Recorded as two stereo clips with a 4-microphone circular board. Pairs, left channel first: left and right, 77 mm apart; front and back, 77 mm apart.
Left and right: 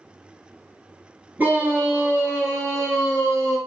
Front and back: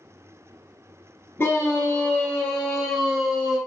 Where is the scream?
35° right, 2.0 m; by 3.6 s 100° right, 2.5 m.